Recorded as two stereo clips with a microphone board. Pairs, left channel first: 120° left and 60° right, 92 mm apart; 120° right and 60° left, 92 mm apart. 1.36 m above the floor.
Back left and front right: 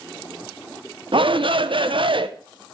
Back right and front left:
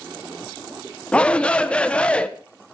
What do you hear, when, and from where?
1.1 s a shout: 40° right, 1.1 m